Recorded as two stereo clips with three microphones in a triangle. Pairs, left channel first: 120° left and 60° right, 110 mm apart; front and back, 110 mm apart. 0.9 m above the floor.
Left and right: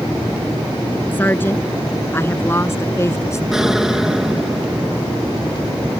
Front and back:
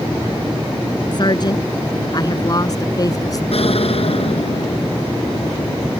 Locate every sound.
1.1 s a woman speaking: 50° left; by 3.4 s 55° left
3.5 s an explosion: 25° left